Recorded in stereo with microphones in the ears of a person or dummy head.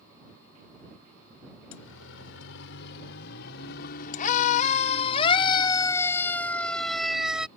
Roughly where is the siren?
Left.